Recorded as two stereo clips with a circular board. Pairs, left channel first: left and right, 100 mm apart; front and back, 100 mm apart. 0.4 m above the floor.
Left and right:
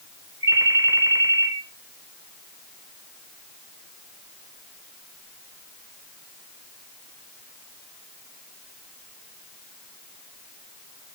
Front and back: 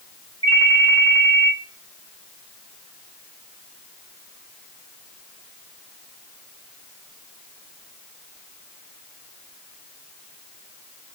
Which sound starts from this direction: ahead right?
A ringtone, at 0.4 s.